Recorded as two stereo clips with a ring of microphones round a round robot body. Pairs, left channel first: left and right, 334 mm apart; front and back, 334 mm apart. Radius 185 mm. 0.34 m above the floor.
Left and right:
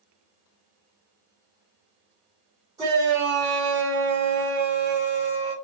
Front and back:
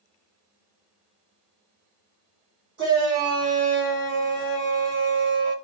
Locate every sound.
2.8 s a shout: 160° right, 1.5 m